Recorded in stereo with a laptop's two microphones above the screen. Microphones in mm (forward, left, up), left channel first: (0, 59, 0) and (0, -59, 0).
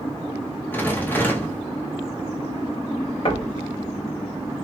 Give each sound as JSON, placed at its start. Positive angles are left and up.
{"t": 0.7, "sound": "a rattle", "side_deg": 15, "distance_m": 0.5}
{"t": 3.2, "sound": "knocking", "side_deg": 50, "distance_m": 0.9}